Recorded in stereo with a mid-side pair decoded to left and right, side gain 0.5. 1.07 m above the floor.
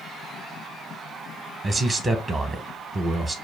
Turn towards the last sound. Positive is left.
turn(degrees=-25)